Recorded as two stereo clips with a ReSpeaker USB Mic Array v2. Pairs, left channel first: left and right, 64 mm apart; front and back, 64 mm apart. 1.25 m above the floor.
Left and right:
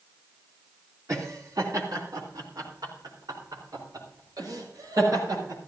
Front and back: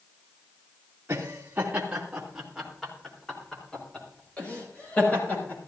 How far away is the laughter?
About 3 m.